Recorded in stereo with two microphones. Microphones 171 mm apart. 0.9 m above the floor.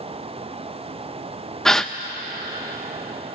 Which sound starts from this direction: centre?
A gasp, at 1.6 s.